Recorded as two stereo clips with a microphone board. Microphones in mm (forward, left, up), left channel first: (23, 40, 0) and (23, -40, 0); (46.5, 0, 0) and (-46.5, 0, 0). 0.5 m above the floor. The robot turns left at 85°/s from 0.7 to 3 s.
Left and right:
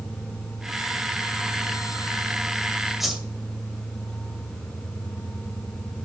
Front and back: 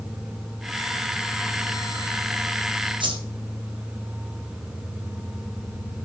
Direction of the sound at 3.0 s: Straight behind.